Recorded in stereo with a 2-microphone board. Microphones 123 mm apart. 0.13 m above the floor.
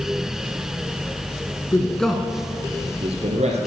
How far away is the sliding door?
No sliding door in this recording.